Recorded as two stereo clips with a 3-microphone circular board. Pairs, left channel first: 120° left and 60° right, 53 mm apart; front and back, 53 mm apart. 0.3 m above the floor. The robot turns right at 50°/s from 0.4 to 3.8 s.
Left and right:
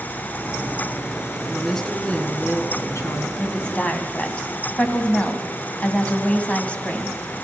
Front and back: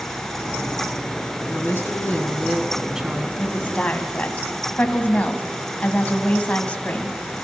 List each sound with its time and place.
1.5 s a woman speaking: 25° left, 3 m; by 3.3 s 115° left, 3 m
3.4 s a woman speaking: 35° left, 2.5 m; by 7.2 s 60° left, 2.5 m